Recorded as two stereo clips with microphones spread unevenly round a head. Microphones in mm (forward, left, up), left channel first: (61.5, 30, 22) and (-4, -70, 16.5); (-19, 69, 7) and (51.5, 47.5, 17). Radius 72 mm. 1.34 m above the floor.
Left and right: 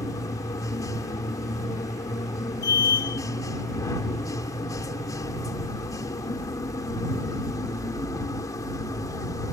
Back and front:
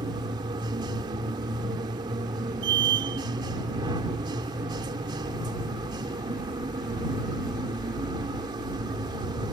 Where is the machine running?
5° right.